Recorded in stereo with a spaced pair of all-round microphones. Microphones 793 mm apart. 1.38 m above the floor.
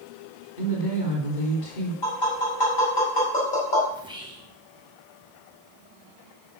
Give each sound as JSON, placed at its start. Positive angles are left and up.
{"t": 0.6, "sound": "a woman speaking", "side_deg": 70, "distance_m": 3.5}
{"t": 2.0, "sound": "tapping", "side_deg": 70, "distance_m": 6.0}
{"t": 3.9, "sound": "whispering", "side_deg": -5, "distance_m": 1.0}